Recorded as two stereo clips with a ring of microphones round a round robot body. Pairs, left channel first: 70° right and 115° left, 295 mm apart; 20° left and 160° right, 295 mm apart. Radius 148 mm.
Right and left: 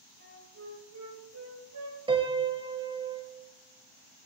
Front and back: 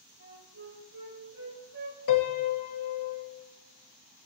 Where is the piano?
40° left, 1.2 m.